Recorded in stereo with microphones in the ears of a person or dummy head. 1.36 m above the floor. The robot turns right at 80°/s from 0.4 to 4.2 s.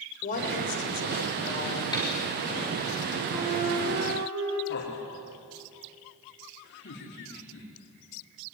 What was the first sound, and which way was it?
A woman speaking, 40° left.